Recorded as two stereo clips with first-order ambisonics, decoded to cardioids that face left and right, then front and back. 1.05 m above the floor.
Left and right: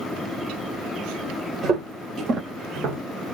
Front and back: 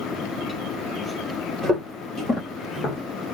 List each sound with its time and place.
1.6 s footsteps: 130° right, 1.1 m; by 3.0 s 60° right, 1.5 m